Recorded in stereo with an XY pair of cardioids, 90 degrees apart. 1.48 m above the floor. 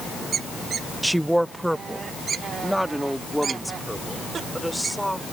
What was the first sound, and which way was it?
A woman speaking, 5° right.